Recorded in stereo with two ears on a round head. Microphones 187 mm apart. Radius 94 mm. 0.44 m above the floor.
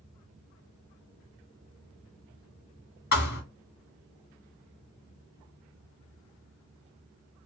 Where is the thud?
50° left (ahead or behind), 1.9 m.